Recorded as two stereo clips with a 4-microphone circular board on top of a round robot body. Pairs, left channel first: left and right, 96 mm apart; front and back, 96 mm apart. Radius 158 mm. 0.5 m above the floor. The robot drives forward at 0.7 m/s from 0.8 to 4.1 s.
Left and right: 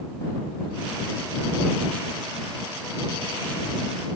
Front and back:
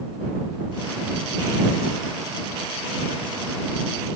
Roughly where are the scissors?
I don't hear scissors.